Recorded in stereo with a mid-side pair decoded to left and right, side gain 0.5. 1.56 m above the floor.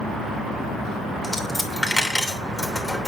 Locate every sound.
1.2 s a dropped coin: 15° left, 3 m